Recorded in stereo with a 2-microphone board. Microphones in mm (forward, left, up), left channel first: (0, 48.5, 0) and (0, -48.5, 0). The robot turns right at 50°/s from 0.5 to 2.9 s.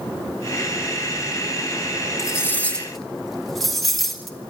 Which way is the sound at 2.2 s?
35° left (ahead or behind).